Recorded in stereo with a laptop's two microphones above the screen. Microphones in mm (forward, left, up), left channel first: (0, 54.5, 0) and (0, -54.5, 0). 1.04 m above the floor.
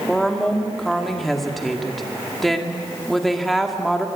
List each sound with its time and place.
0.1 s a woman speaking: centre (ahead or behind), 1.8 m